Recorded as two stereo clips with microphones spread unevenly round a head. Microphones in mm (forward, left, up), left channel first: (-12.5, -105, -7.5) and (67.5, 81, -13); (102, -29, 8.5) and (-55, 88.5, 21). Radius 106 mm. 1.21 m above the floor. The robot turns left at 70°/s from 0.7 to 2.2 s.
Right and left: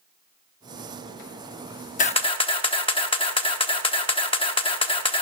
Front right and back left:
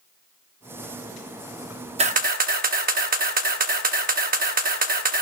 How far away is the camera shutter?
About 1.0 m.